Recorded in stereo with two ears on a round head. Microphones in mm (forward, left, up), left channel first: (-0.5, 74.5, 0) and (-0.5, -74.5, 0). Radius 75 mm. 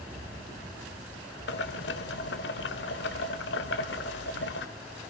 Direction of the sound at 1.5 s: 75° left (ahead or behind).